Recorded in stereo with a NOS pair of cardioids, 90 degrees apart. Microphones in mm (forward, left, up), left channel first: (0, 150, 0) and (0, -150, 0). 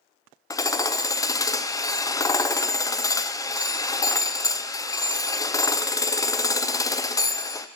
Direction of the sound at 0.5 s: 10° left.